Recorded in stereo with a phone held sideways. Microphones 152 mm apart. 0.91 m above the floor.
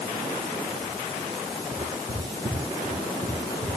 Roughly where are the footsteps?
Right.